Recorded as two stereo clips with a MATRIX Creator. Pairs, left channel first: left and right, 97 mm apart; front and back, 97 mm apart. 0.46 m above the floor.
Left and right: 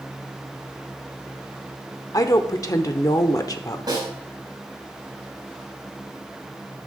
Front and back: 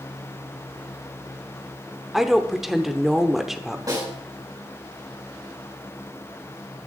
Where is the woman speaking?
95° left, 0.9 m.